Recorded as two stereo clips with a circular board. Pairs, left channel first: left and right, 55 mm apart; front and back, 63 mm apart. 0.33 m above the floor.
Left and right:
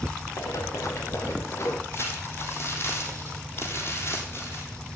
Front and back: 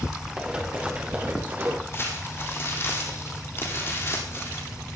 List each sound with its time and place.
0.4 s running footsteps: 105° left, 3 m; by 1.8 s 125° left, 2 m
1.9 s crumpling: 50° left, 3.5 m